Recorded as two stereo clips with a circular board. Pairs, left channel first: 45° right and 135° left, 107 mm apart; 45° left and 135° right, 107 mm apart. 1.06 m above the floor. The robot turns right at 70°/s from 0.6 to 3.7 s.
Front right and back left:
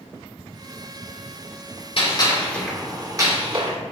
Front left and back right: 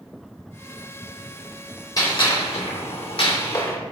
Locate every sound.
2.0 s a gunshot: 10° right, 2 m; by 3.8 s 115° left, 2 m